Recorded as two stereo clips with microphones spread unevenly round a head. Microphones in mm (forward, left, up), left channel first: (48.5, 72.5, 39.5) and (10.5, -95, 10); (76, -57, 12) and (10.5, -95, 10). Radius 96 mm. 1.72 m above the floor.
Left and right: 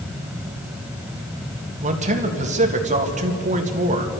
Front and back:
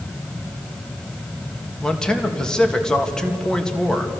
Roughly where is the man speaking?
Ahead right.